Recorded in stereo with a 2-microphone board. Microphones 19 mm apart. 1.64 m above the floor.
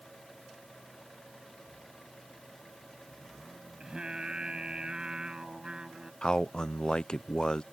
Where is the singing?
45° right (ahead or behind).